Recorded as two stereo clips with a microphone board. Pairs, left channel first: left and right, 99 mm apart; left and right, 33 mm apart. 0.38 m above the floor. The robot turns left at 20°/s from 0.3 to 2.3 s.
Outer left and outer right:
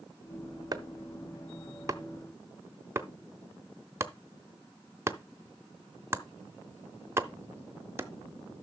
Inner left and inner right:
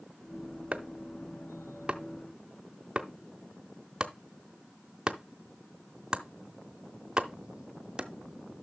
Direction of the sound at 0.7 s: 40° right (ahead or behind).